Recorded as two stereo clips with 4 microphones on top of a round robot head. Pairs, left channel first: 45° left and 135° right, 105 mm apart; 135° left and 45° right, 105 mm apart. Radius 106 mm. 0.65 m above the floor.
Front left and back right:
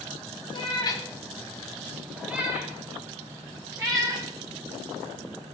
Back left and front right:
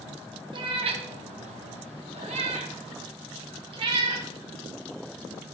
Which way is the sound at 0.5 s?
Straight ahead.